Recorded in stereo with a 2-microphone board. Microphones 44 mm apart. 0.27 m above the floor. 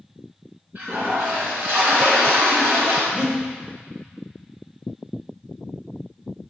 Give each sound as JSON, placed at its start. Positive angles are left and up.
{"t": 0.8, "sound": "a toilet flushing", "side_deg": -50, "distance_m": 2.5}
{"t": 3.1, "sound": "breathing", "side_deg": -25, "distance_m": 1.4}